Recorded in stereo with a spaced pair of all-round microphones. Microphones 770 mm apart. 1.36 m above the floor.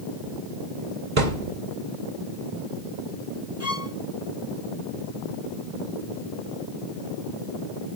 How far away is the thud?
About 2.5 m.